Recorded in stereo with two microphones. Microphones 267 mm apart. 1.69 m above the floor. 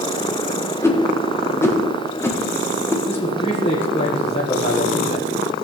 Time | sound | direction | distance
0.8 | a whoosh | 10° left (ahead or behind) | 1.4 m
3.0 | a man speaking | 20° left (ahead or behind) | 1.7 m